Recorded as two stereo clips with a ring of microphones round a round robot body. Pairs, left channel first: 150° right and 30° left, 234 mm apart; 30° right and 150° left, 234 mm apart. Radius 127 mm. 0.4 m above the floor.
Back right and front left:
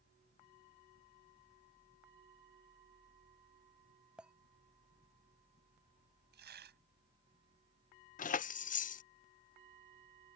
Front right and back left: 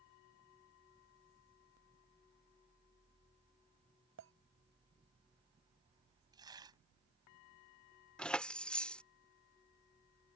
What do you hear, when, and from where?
4.2 s a clink: 115° left
6.3 s tearing paper: 75° left
8.2 s keys jangling: 115° right